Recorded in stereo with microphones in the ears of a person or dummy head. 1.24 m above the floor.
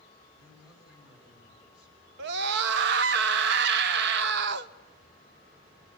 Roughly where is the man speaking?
Centre.